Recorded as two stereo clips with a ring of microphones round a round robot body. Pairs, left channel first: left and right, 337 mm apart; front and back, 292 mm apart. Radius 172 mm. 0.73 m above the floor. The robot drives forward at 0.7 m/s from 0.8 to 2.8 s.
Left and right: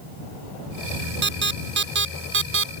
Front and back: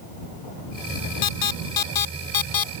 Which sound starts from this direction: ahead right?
An alarm, at 1.2 s.